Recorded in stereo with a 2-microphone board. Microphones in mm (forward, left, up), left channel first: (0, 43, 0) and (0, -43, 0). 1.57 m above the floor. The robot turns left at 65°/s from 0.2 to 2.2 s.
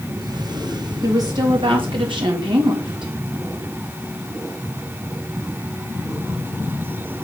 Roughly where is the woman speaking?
Ahead right.